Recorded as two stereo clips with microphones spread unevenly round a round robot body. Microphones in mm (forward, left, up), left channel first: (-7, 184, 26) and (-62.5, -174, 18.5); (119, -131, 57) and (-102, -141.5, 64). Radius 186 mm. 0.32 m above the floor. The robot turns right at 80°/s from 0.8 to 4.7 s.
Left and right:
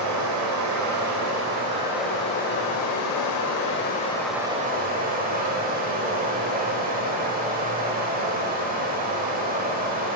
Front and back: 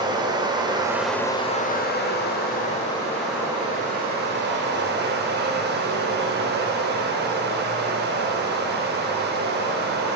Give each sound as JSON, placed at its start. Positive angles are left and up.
{"t": 0.0, "sound": "running water", "azimuth_deg": -110, "distance_m": 0.8}